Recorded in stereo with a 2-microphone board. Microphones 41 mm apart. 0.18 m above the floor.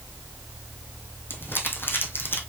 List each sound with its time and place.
1.3 s crumpling: 60° left (ahead or behind), 1.9 m